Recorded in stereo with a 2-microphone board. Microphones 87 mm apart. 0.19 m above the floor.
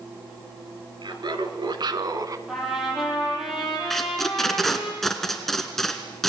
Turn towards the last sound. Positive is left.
turn(degrees=5)  # may be behind; listen again after turning